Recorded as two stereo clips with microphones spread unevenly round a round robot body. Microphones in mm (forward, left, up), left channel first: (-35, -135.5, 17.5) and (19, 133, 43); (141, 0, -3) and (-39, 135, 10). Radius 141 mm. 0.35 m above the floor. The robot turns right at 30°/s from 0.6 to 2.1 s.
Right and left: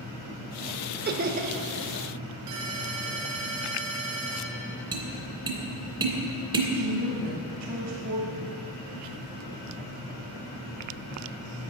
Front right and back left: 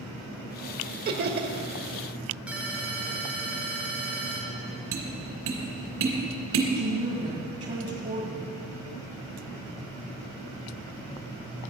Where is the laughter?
120° left, 1.1 m; by 1.6 s 135° left, 1.1 m.